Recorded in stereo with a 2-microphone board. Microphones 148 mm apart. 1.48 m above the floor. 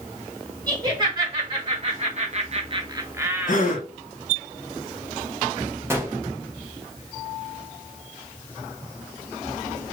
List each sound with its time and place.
0.7 s laughter: 30° right (ahead or behind), 1.4 m; by 3.8 s 5° right (ahead or behind), 1.0 m
3.5 s a gasp: 60° left (ahead or behind), 0.8 m
5.9 s a gunshot: 15° right (ahead or behind), 0.8 m